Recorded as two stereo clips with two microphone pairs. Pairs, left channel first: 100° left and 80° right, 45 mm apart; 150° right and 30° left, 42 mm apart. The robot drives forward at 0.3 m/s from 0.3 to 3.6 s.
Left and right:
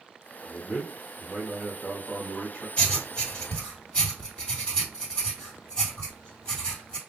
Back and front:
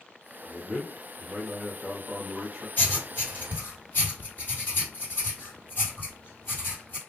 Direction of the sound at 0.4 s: 125° left.